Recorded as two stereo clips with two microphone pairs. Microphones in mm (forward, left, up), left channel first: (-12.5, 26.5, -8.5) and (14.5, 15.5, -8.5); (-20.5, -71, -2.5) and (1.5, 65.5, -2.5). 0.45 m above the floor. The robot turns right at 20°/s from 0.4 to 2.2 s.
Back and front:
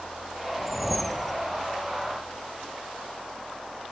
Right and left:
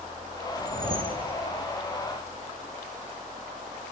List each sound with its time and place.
0.6 s a whoosh: 60° left, 0.8 m; by 1.4 s 75° left, 0.8 m